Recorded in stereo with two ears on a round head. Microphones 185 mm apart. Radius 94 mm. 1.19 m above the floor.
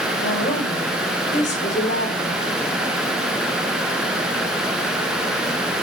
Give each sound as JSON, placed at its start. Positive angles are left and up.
{"t": 0.2, "sound": "a woman speaking", "side_deg": 35, "distance_m": 5.0}